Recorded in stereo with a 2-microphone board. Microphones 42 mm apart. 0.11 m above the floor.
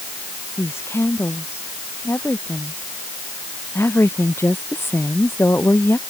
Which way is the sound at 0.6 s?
75° left (ahead or behind).